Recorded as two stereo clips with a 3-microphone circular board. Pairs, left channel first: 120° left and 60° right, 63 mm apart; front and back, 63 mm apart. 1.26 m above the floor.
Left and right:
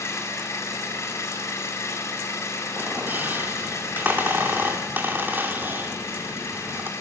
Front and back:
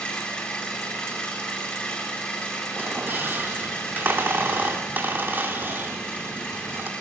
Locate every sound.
0.0 s an engine running: 75° left, 7.5 m
2.8 s a squeak: 120° right, 2.5 m